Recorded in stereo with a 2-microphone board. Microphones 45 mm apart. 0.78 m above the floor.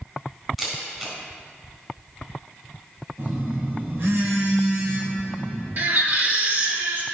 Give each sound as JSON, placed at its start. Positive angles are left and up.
{"t": 0.6, "sound": "a camera shutter", "side_deg": -15, "distance_m": 3.5}
{"t": 3.2, "sound": "a phone buzzing", "side_deg": -80, "distance_m": 3.0}
{"t": 5.8, "sound": "a baby crying", "side_deg": -50, "distance_m": 1.8}